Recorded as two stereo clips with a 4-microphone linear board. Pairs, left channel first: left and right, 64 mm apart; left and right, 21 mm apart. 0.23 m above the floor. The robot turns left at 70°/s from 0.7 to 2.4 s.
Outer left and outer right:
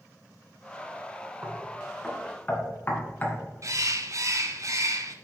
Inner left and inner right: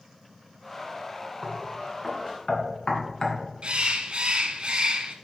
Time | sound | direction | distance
1.4 | knocking | 30° right (ahead or behind) | 1.6 m
3.6 | a bird | 55° right (ahead or behind) | 0.7 m